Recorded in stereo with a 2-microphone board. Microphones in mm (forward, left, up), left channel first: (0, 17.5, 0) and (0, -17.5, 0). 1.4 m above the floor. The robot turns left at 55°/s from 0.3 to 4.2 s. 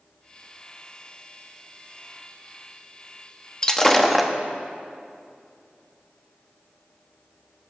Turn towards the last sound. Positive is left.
turn(degrees=0)